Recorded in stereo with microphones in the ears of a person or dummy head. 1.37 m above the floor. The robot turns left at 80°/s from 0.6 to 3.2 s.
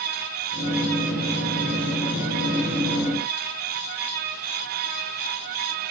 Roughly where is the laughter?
I don't hear laughter.